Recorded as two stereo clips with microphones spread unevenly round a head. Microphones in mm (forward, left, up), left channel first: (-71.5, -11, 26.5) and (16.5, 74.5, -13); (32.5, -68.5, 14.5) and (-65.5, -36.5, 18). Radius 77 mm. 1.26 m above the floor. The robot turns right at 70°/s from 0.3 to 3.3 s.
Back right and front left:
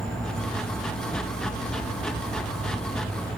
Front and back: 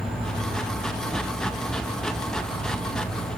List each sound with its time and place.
0.0 s an insect: 115° left, 2.5 m; by 3.4 s 35° right, 2.5 m